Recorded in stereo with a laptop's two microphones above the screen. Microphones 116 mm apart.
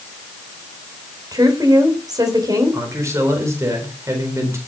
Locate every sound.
1.3 s a woman speaking: 30° right (ahead or behind), 3.5 m
2.7 s a man speaking: 25° right (ahead or behind), 4 m